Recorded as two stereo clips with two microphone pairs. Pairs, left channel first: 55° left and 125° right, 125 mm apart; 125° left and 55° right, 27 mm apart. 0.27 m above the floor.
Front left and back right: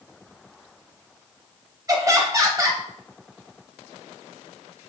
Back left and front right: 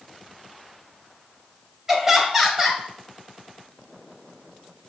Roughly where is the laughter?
Right.